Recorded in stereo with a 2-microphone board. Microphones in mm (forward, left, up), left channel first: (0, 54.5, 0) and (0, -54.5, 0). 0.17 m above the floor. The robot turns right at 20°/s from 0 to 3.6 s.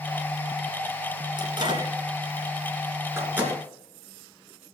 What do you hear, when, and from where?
1.4 s a microwave: 50° right (ahead or behind), 2 m; by 3.6 s 15° right (ahead or behind), 2 m